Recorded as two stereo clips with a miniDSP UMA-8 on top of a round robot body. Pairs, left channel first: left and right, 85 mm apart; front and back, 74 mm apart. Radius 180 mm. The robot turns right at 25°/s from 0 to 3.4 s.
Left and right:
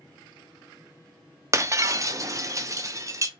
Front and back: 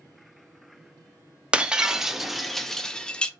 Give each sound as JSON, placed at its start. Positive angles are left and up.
{"t": 1.5, "sound": "breaking glass", "azimuth_deg": -115, "distance_m": 0.5}